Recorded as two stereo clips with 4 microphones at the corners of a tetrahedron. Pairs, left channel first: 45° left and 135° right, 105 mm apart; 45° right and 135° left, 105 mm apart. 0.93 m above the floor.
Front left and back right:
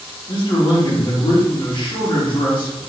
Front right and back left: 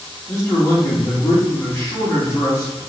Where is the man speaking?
10° left, 1.6 m.